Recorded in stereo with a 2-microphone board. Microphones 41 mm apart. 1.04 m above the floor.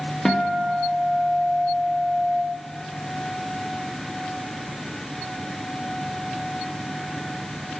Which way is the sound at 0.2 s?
10° left (ahead or behind).